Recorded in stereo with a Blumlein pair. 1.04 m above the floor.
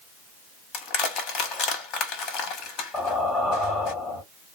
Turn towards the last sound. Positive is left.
turn(degrees=20)